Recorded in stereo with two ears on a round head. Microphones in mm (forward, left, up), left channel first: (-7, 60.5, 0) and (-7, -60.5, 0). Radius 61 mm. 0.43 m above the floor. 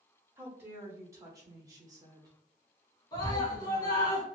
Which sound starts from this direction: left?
A scream, at 3.1 s.